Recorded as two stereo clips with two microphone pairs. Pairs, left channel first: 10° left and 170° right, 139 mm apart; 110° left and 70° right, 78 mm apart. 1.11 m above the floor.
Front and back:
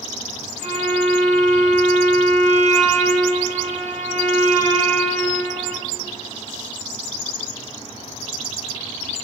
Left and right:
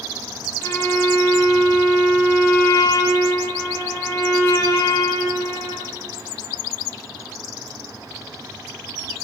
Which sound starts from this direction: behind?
A violin, at 0.6 s.